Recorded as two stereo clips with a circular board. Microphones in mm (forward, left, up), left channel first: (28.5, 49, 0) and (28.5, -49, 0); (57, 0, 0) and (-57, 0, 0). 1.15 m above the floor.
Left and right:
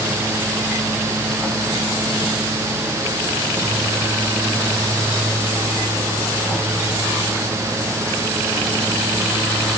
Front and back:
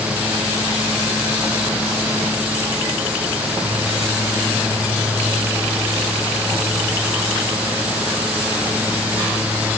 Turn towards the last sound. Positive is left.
No sound to turn to.